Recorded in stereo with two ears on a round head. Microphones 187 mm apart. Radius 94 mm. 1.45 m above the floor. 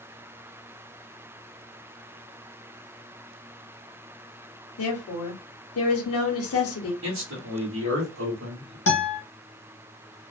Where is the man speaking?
70° right (ahead or behind), 1.0 m.